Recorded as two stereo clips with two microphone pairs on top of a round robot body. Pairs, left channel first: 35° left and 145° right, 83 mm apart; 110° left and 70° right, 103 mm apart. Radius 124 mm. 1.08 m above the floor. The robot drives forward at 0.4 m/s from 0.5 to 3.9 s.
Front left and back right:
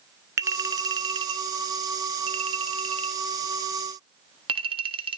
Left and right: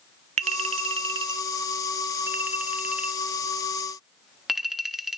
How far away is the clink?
About 0.6 m.